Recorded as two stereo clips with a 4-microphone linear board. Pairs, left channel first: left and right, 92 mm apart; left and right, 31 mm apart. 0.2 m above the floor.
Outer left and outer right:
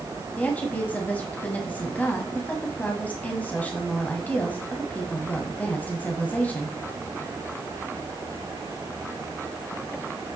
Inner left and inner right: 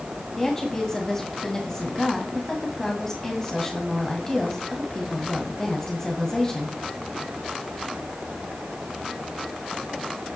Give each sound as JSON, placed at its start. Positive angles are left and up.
{"t": 0.4, "sound": "a woman speaking", "side_deg": 20, "distance_m": 1.5}